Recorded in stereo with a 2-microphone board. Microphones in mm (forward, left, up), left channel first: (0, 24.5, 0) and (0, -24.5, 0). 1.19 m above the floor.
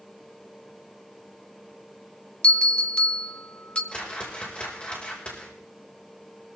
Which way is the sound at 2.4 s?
25° left (ahead or behind).